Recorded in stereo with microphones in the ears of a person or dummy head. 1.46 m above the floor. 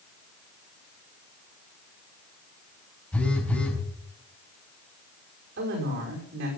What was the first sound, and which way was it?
A phone buzzing, 5° left (ahead or behind).